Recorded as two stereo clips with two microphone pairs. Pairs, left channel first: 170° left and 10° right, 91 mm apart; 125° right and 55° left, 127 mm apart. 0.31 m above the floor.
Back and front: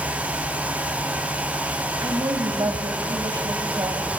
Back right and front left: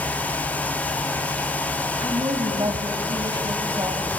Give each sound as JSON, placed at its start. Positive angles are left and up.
{"t": 2.0, "sound": "a woman speaking", "azimuth_deg": 10, "distance_m": 1.7}